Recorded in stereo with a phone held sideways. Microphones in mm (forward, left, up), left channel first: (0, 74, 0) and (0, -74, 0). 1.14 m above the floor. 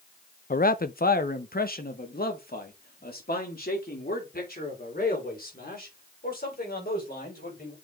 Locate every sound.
0.5 s a man speaking: 70° left (ahead or behind), 0.5 m; by 7.7 s 85° left, 5 m